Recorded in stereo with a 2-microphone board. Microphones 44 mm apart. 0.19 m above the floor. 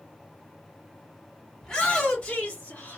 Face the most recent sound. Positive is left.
turn(degrees=40)  # may be behind; listen again after turning